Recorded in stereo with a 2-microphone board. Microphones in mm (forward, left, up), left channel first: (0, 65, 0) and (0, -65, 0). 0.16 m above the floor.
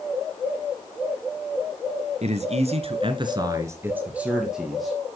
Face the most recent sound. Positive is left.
turn(degrees=0)  # may be behind; listen again after turning